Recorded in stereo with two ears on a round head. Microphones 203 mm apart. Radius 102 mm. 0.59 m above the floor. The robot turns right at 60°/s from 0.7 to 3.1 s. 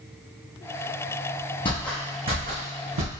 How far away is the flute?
No flute in this recording.